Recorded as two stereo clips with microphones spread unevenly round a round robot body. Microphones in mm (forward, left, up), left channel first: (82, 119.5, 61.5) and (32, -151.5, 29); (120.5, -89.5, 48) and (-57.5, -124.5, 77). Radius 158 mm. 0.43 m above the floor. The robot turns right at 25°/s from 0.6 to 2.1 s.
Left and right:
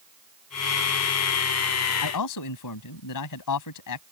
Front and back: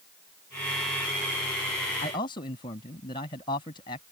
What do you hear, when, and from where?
2.0 s a man speaking: 75° left; by 4.0 s 80° left